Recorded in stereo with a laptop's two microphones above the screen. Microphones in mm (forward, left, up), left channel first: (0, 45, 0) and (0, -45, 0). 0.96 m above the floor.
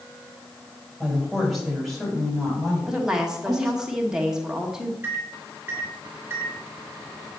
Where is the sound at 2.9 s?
5° right (ahead or behind), 1.2 m.